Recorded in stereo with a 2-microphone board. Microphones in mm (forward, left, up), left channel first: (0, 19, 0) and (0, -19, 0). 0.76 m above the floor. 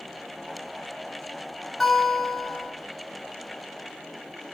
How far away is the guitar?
About 0.7 m.